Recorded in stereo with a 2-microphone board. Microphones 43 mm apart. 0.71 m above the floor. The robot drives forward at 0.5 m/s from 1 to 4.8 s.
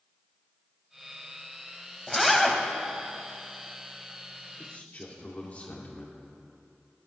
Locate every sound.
2.1 s a zipper: centre (ahead or behind), 1.1 m
4.6 s a man speaking: 35° left (ahead or behind), 2 m